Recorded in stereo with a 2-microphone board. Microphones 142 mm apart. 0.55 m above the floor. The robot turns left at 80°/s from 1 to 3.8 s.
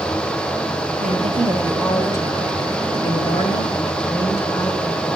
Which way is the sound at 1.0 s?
110° right.